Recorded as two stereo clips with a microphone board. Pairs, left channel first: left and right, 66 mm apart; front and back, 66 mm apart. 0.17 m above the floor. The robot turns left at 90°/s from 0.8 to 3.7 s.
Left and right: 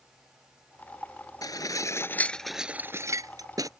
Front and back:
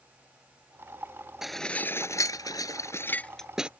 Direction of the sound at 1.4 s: 95° left.